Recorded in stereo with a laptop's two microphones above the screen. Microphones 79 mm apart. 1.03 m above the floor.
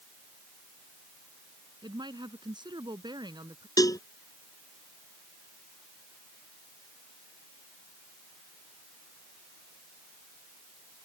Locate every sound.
1.8 s a woman speaking: 70° right (ahead or behind); by 3.7 s 65° right (ahead or behind)
3.8 s a cowbell: 50° left (ahead or behind)